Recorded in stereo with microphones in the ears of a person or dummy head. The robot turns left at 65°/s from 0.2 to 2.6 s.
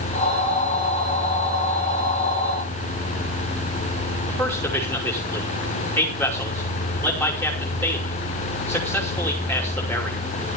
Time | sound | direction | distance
4.3 | a man speaking | 15° left (ahead or behind) | 5.5 m